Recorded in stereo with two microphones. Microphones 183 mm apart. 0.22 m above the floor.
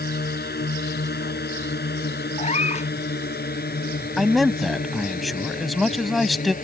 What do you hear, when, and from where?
0.0 s a drone: 60° left (ahead or behind); by 6.6 s 45° left (ahead or behind)
2.4 s a cat meowing: 35° left (ahead or behind)
4.2 s a man speaking: centre (ahead or behind)